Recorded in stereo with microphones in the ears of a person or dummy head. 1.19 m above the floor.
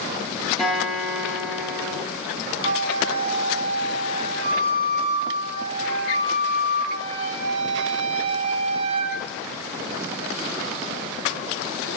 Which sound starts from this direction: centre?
A guitar, at 0.6 s.